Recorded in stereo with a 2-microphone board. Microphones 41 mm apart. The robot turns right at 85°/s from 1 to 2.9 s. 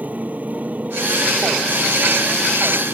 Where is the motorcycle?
40° right (ahead or behind); by 3.0 s 55° left (ahead or behind).